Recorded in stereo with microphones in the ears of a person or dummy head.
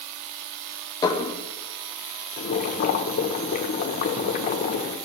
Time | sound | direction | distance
1.0 | dishes clattering | 20° left (ahead or behind) | 1.0 m
2.4 | boiling | 40° left (ahead or behind) | 0.9 m